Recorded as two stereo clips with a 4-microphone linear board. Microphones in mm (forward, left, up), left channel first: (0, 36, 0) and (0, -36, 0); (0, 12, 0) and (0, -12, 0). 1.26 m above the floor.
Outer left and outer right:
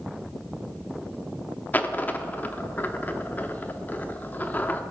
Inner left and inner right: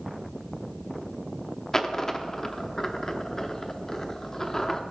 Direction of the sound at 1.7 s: 25° left (ahead or behind).